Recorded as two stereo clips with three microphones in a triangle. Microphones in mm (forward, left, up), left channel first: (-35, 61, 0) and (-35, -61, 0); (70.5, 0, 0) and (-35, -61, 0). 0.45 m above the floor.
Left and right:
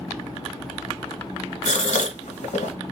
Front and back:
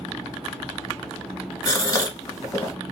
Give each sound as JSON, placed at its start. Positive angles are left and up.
{"t": 1.6, "sound": "a gasp", "azimuth_deg": 90, "distance_m": 0.9}